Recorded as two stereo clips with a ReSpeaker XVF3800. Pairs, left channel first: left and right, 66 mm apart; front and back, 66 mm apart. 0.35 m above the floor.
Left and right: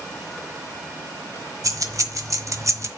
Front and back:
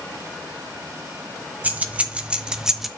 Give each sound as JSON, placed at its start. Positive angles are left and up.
{"t": 1.6, "sound": "keys jangling", "azimuth_deg": -115, "distance_m": 1.3}